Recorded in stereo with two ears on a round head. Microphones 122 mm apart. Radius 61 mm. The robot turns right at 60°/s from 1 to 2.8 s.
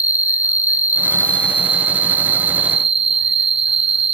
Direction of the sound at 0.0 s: 165° right.